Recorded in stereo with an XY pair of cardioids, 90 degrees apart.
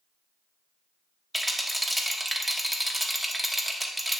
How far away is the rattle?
About 1.1 m.